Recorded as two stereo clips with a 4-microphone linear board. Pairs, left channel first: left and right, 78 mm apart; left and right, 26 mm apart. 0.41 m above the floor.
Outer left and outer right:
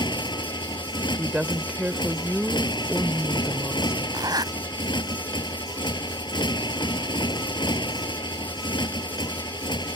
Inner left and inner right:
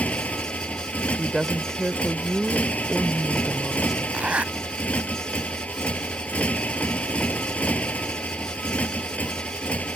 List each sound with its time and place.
0.0 s a motorcycle: 85° left
1.2 s a woman speaking: 10° right (ahead or behind)
4.1 s a zipper: 60° right (ahead or behind)